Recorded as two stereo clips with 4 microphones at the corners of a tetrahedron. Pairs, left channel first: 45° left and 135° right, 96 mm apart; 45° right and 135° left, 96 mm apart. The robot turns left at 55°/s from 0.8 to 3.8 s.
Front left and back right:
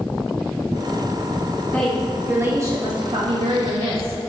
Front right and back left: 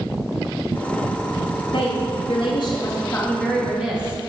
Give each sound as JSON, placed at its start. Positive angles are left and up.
{"t": 1.7, "sound": "a woman speaking", "azimuth_deg": -30, "distance_m": 1.9}